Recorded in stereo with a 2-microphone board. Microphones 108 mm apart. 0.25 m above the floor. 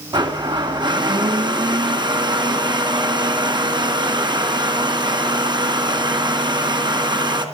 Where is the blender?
45° right (ahead or behind), 2.0 m.